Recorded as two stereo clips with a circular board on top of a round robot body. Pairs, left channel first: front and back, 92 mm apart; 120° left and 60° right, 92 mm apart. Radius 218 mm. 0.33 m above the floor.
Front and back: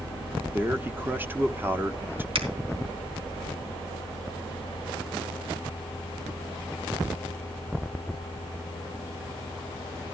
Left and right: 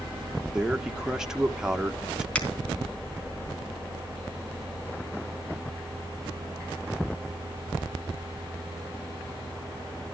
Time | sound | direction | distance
0.5 | a man speaking | 135° right | 1.3 m
2.4 | a finger snap | 160° right | 4 m